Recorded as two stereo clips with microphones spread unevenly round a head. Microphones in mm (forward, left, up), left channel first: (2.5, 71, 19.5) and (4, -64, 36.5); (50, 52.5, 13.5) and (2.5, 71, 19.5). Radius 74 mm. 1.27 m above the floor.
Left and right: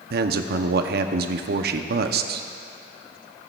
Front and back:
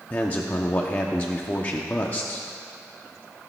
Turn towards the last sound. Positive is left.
turn(degrees=-85)